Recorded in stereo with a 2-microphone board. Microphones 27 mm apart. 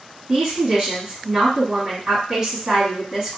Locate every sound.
0.3 s a woman speaking: 15° right (ahead or behind), 1.5 m